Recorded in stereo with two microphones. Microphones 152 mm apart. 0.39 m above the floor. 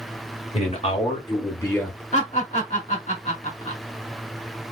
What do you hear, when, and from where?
0.5 s a man speaking: 50° left (ahead or behind), 1.4 m; by 2.0 s 5° left (ahead or behind), 1.1 m
2.1 s laughter: 50° left (ahead or behind), 2 m